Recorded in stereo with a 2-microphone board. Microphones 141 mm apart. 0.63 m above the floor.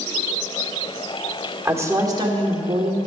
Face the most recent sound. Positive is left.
turn(degrees=-50)  # may be behind; listen again after turning